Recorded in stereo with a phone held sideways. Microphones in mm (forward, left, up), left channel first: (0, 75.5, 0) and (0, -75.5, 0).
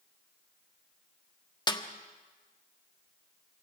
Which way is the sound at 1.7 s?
30° left (ahead or behind).